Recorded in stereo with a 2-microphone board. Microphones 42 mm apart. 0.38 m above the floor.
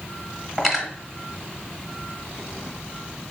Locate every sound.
0.6 s cutlery clinking: 5° right (ahead or behind), 1.2 m